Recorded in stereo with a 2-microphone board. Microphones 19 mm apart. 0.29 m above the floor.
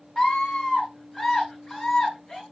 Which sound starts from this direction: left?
A scream, at 0.2 s.